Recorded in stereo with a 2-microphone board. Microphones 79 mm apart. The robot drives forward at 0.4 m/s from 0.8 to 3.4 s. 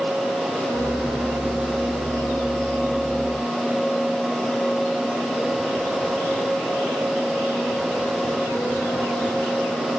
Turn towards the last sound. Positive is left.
No sound to turn to.